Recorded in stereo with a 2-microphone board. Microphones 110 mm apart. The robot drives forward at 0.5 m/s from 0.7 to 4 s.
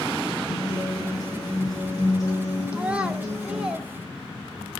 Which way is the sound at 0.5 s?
40° left (ahead or behind).